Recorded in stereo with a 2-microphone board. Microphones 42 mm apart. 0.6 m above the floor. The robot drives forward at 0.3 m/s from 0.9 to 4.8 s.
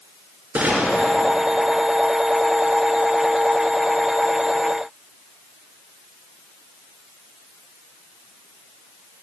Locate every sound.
0.6 s a gunshot: 50° right (ahead or behind), 1.9 m; by 1.1 s 55° right (ahead or behind), 1.9 m